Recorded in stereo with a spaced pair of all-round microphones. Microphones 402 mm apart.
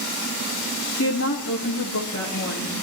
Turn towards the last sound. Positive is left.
turn(degrees=40)  # may be behind; listen again after turning